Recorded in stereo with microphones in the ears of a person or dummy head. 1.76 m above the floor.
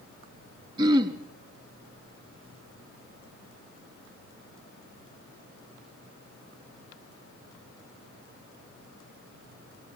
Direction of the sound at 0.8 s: 25° right (ahead or behind).